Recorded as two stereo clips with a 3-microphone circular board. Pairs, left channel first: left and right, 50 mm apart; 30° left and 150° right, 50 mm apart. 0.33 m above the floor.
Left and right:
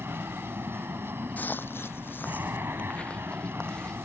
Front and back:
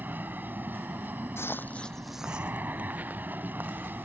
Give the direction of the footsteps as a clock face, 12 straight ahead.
11 o'clock.